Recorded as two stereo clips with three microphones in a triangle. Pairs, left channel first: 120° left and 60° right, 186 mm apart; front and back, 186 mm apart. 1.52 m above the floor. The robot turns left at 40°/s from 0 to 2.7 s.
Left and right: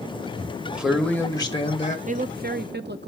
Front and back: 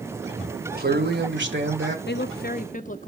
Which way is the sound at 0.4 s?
130° right.